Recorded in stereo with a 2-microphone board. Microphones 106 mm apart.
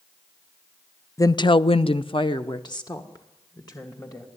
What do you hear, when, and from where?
1.2 s a woman speaking: 30° left (ahead or behind), 0.6 m; by 4.3 s 35° left (ahead or behind), 3 m